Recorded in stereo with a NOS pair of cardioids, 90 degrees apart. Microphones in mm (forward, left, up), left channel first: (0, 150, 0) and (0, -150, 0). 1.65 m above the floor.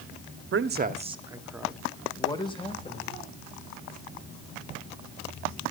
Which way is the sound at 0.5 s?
40° right.